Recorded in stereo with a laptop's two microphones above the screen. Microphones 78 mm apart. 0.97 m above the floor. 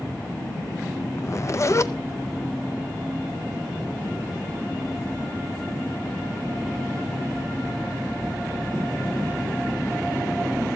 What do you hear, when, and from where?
1.2 s a zipper: 40° left (ahead or behind), 0.6 m